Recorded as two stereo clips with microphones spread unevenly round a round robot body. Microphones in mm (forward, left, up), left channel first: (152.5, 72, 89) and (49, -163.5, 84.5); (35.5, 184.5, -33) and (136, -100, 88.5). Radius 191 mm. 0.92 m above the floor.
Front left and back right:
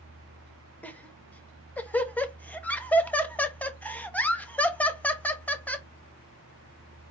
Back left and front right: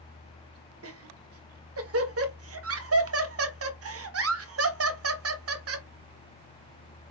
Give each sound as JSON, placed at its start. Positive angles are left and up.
{"t": 0.8, "sound": "laughter", "azimuth_deg": -15, "distance_m": 1.2}